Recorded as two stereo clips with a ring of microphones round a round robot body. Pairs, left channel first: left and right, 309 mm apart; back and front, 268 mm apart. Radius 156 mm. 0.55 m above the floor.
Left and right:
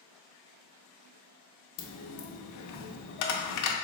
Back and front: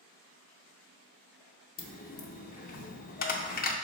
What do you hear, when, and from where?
1.8 s a dropped coin: 120° left, 0.5 m